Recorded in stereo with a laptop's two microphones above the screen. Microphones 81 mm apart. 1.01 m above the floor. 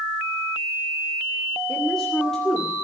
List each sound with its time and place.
1.7 s a woman speaking: 5° left (ahead or behind), 2.5 m